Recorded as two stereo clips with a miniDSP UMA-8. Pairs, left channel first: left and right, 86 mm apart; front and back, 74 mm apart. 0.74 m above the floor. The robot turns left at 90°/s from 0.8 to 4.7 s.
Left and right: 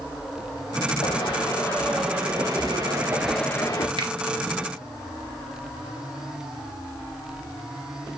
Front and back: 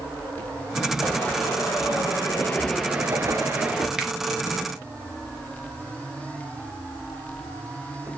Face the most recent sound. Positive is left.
turn(degrees=-165)